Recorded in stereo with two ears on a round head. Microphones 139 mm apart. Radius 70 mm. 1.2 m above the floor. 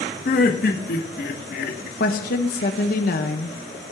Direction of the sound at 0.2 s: 60° left (ahead or behind).